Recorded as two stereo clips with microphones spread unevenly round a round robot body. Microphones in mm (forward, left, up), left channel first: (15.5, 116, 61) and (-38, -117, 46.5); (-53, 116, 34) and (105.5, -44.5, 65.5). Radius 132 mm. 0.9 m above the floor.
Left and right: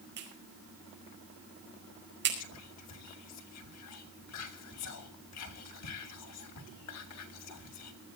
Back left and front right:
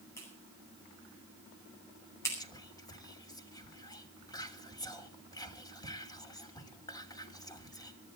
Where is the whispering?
65° left, 3 m.